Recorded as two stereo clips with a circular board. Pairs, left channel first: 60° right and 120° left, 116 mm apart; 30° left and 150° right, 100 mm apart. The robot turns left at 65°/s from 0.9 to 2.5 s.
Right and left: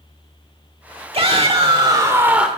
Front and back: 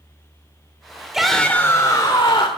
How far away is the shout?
About 1.4 m.